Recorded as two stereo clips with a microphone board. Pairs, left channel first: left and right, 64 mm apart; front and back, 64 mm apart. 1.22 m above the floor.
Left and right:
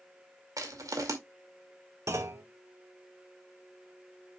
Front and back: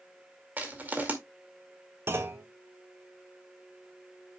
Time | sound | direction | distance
0.6 | crushing | 115° right | 2 m
2.1 | a clunk | 130° right | 1.3 m